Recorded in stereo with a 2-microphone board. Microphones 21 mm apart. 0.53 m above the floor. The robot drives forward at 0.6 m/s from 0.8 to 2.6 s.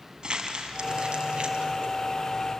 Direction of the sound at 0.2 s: 45° right (ahead or behind).